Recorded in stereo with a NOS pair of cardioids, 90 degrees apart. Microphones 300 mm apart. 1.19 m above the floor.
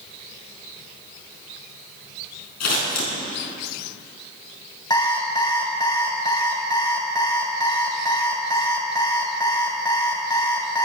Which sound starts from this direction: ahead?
An alarm clock, at 4.9 s.